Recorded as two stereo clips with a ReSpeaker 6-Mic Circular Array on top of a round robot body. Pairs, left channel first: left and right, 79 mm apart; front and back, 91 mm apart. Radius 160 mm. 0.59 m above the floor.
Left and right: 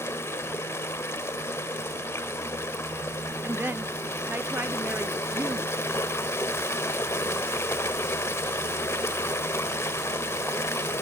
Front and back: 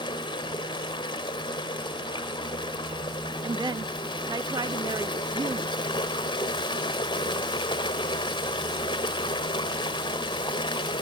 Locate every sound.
0.0 s running water: 30° left
3.4 s a woman speaking: 150° right